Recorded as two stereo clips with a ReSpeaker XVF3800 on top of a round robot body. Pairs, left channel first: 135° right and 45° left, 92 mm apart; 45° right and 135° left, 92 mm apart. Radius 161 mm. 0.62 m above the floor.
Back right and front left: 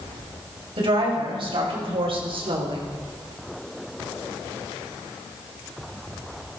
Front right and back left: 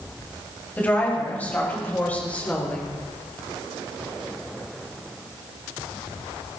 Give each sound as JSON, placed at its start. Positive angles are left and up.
{"t": 0.8, "sound": "a woman speaking", "azimuth_deg": 25, "distance_m": 5.5}